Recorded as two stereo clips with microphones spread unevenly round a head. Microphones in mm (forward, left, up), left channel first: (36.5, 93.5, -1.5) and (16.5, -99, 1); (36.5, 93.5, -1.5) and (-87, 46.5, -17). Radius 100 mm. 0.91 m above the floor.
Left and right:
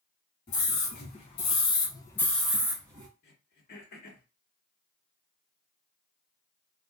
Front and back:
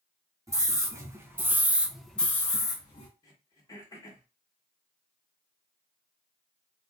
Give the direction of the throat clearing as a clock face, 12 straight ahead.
9 o'clock.